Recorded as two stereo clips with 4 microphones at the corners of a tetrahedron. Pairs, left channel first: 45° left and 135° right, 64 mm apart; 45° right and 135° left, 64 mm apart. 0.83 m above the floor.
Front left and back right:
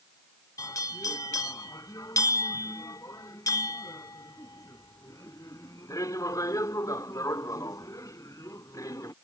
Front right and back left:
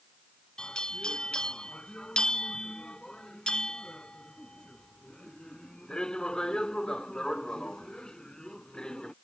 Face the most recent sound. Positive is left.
turn(degrees=35)